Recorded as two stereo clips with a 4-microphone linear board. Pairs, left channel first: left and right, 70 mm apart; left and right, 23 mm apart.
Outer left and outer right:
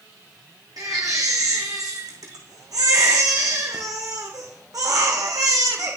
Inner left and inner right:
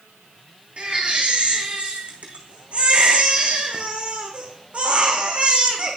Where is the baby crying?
65° right (ahead or behind), 2 m.